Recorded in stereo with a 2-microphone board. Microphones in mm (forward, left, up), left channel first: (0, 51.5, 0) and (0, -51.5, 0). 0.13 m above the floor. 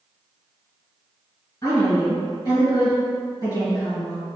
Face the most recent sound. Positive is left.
turn(degrees=35)  # may be behind; listen again after turning